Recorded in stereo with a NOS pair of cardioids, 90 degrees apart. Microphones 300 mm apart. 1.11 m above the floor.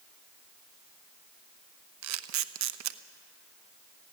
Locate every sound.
2.0 s a camera shutter: 70° right, 0.9 m